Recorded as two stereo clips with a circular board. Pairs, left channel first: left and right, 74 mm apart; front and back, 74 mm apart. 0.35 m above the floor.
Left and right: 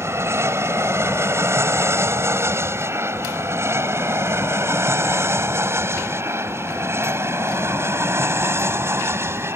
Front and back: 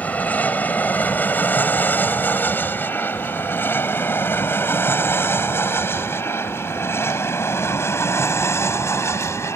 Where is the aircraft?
60° right; by 9.6 s 40° right.